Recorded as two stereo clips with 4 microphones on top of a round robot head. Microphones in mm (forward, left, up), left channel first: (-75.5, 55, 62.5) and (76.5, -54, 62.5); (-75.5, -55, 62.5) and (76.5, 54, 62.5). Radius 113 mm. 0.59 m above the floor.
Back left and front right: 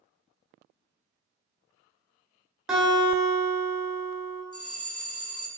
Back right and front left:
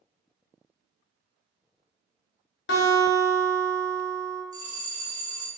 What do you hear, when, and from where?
2.7 s a guitar: 120° right, 1.3 m
4.5 s a bell: 95° left, 1.2 m